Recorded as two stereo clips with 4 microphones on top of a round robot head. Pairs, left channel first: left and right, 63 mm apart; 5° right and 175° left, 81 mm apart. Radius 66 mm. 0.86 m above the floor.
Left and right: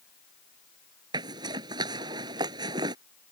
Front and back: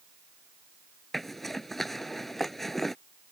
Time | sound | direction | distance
1.1 | a zipper | 95° right | ?